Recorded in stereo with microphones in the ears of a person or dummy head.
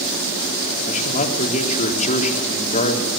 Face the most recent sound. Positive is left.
turn(degrees=40)  # may be behind; listen again after turning